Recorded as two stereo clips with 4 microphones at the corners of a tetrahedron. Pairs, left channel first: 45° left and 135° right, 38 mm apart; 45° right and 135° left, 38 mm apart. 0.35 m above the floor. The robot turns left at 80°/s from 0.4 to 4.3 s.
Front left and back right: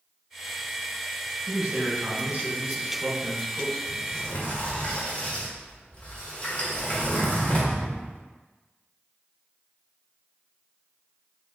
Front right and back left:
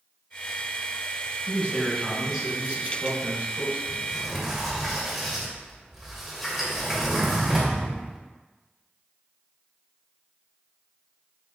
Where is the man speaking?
75° right, 1.4 m; by 3.8 s 100° left, 1.4 m.